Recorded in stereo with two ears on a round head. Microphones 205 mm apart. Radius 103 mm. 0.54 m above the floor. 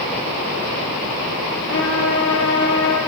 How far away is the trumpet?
About 6.5 m.